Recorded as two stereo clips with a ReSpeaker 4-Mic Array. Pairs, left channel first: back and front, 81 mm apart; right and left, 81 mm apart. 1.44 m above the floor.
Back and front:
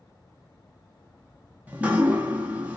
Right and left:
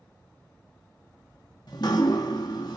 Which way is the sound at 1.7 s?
70° right.